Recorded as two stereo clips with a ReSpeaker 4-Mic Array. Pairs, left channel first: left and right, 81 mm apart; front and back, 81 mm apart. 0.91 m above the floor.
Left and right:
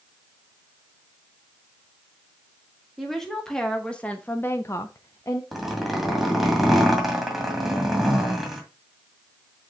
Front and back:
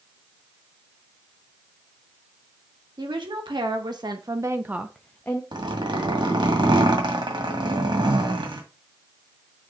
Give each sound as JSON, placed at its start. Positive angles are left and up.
{"t": 3.0, "sound": "a woman speaking", "azimuth_deg": 175, "distance_m": 1.9}
{"t": 5.5, "sound": "a zipper", "azimuth_deg": 180, "distance_m": 1.9}